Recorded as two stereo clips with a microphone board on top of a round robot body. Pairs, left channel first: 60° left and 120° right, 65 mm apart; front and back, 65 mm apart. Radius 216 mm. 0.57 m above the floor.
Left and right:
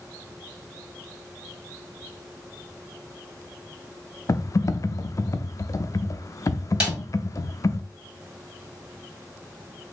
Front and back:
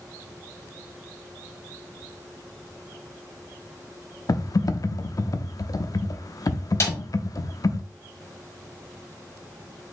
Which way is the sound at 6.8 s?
40° right.